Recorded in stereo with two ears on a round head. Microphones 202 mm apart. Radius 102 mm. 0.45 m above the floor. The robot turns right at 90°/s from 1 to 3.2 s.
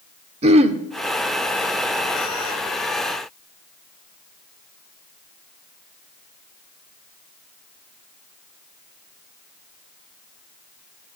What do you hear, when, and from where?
0.4 s throat clearing: 30° right (ahead or behind), 1.0 m